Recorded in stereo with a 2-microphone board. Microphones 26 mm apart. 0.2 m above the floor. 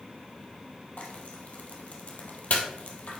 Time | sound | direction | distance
1.0 | frying | 55° left (ahead or behind) | 1.6 m